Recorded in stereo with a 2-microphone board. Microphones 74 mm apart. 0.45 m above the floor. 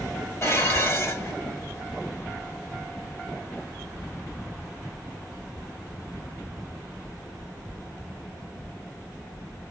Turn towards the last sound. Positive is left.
turn(degrees=40)  # may be behind; listen again after turning